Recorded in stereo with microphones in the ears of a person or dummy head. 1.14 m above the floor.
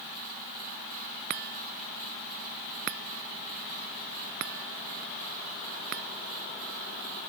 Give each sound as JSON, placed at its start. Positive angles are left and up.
{"t": 1.3, "sound": "a chime", "side_deg": -55}